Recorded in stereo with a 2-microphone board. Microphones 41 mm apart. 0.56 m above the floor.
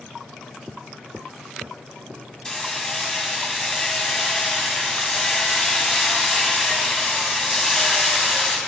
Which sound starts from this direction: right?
Footsteps, at 0.7 s.